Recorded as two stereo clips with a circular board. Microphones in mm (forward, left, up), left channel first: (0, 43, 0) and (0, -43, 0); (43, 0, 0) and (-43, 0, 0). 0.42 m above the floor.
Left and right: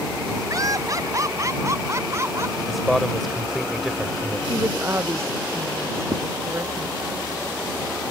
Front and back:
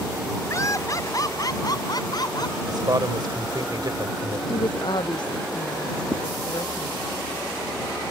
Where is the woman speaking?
30° right.